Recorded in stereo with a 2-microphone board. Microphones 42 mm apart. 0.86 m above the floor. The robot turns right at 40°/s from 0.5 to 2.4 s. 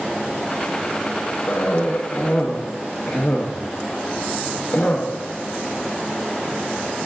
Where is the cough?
60° left (ahead or behind), 0.8 m; by 5.0 s 35° left (ahead or behind), 0.8 m.